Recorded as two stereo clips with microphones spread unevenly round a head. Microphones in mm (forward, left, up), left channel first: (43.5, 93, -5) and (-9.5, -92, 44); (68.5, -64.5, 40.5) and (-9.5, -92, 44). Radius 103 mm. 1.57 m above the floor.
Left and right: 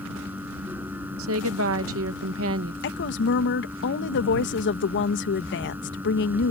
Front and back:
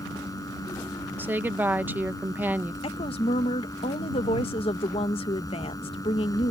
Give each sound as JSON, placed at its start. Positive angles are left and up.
{"t": 0.0, "sound": "a fan", "azimuth_deg": -25}
{"t": 1.2, "sound": "a woman speaking", "azimuth_deg": -95}
{"t": 2.8, "sound": "a woman speaking", "azimuth_deg": 40}